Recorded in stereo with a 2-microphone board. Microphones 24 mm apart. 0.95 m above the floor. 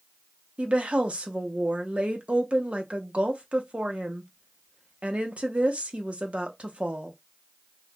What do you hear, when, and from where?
0.6 s a woman speaking: 60° right (ahead or behind), 0.8 m